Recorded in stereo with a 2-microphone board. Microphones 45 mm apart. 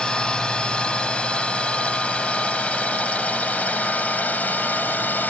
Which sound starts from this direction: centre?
A drone, at 0.0 s.